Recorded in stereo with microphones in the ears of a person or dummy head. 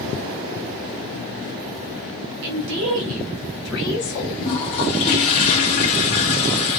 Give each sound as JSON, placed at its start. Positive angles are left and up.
{"t": 2.4, "sound": "a woman speaking", "side_deg": -50, "distance_m": 0.8}
{"t": 4.4, "sound": "a toilet flushing", "side_deg": 35, "distance_m": 0.9}